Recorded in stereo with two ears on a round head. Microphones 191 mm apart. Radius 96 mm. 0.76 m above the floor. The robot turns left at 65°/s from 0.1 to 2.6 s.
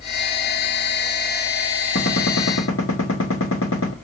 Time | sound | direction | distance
1.9 | a gunshot | 130° left | 2.0 m